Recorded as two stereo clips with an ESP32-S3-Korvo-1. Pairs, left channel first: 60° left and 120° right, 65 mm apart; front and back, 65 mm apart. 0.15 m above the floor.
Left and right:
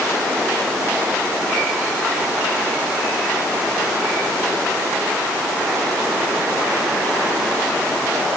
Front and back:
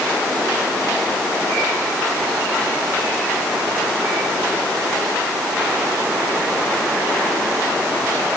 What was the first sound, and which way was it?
Only background noise.